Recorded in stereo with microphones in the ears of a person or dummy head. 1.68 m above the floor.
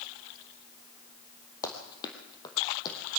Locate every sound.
1.6 s running footsteps: 20° left (ahead or behind), 2.5 m; by 3.0 s 25° left (ahead or behind), 4 m